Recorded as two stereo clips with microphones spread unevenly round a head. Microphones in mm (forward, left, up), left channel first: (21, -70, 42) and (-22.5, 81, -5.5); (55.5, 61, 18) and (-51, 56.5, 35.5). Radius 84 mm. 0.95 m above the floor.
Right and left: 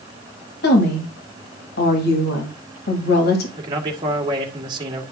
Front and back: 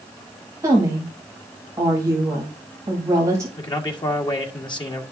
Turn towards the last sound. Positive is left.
turn(degrees=45)